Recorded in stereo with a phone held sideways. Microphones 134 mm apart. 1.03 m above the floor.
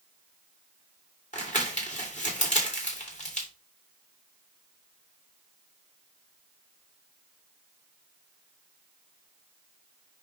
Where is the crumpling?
60° left (ahead or behind), 2.5 m.